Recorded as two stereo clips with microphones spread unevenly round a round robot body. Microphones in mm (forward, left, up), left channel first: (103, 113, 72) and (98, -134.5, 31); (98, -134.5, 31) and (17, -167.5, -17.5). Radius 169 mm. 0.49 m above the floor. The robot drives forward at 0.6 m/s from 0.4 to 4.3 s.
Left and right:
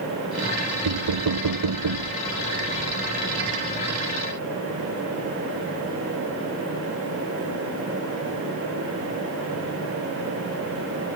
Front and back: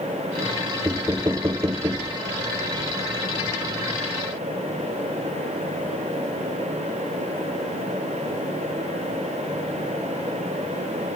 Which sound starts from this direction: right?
Knocking, at 0.8 s.